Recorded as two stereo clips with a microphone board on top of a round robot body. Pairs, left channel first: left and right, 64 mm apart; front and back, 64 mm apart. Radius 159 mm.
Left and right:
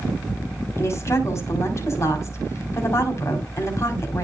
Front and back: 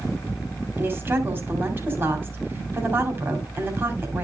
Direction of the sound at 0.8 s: 130° left.